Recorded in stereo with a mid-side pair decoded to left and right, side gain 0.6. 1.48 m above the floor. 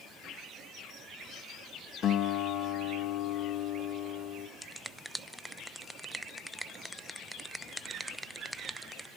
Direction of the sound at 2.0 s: 50° left.